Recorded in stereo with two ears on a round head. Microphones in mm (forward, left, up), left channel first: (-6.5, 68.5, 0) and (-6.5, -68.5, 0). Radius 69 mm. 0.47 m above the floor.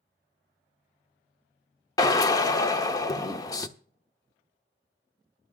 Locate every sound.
2.0 s a drill: 25° left (ahead or behind), 0.9 m